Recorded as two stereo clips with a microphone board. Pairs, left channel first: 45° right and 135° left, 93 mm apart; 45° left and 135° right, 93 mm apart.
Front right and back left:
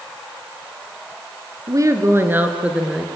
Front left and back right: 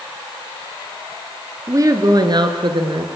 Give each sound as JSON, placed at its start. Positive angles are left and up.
{"t": 1.7, "sound": "a woman speaking", "azimuth_deg": 175, "distance_m": 3.0}